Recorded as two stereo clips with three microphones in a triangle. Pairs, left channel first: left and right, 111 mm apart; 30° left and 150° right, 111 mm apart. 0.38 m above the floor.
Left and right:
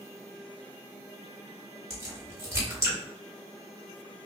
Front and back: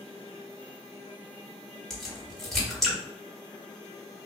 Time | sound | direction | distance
1.9 | a crack | 55° right | 1.5 m